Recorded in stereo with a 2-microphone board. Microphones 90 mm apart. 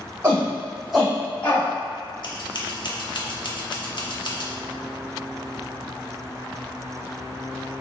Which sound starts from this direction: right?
A shout, at 0.2 s.